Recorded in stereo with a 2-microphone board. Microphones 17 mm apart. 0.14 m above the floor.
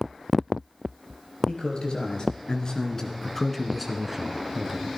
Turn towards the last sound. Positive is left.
turn(degrees=-35)  # may be behind; listen again after turning